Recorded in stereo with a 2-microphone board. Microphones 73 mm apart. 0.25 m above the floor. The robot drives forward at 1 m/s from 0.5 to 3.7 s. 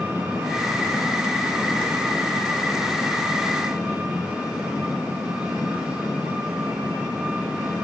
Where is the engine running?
25° right (ahead or behind), 8 m; by 7.8 s 15° right (ahead or behind), 11 m.